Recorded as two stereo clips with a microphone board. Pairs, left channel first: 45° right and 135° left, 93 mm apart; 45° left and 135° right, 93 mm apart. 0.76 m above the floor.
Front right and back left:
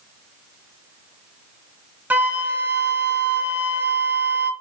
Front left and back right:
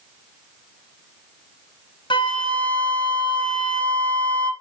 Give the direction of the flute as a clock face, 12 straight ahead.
10 o'clock.